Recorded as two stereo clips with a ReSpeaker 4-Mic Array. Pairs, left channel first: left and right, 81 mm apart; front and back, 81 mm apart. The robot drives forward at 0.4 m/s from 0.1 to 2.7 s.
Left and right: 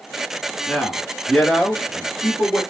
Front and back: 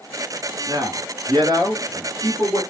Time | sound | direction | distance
0.7 | a man speaking | 175° left | 1.5 m